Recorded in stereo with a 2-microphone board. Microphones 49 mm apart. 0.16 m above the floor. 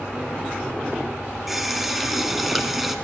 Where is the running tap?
5° right (ahead or behind), 1.1 m.